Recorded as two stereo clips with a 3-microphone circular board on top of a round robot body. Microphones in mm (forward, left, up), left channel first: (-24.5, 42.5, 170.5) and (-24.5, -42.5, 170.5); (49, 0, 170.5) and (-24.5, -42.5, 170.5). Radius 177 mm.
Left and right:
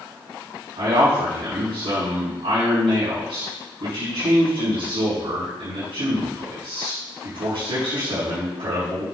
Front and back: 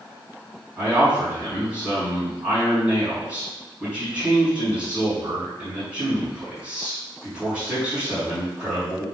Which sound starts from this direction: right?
A man speaking, at 0.8 s.